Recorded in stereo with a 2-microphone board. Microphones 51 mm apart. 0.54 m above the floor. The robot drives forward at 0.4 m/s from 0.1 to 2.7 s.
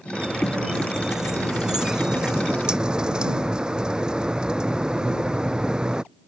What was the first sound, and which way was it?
A squeak, 10° right (ahead or behind).